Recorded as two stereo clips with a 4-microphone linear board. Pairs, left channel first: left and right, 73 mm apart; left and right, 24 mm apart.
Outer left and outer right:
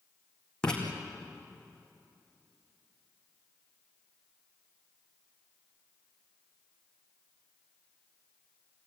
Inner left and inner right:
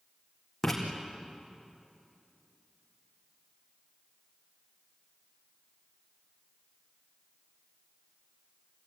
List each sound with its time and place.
0.6 s writing: 10° left (ahead or behind), 4.5 m